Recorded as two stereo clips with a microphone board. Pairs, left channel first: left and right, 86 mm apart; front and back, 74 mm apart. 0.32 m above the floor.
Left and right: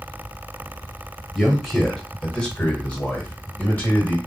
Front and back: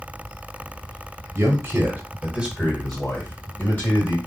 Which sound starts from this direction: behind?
A man speaking, at 1.4 s.